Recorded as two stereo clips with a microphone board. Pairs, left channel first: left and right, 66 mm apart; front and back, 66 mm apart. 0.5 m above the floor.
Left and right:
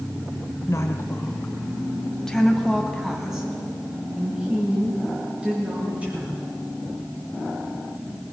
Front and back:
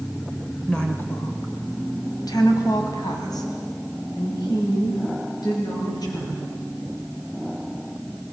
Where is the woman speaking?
70° left, 1.8 m; by 6.5 s 20° right, 8 m.